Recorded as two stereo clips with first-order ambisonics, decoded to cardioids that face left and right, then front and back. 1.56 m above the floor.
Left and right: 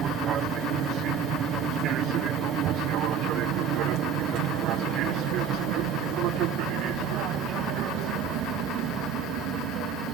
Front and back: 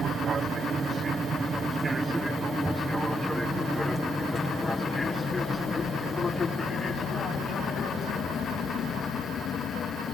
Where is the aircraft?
125° right; by 10.2 s 55° right.